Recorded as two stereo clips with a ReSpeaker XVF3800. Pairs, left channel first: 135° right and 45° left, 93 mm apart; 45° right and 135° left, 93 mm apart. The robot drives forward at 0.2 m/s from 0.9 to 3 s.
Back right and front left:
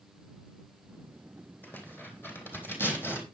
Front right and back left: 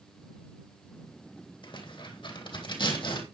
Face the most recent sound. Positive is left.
turn(degrees=-70)